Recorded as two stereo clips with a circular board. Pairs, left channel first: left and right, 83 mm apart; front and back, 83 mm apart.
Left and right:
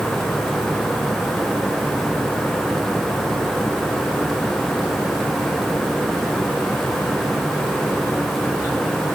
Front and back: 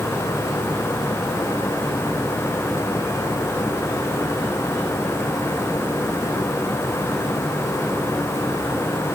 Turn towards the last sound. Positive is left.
No sound to turn to.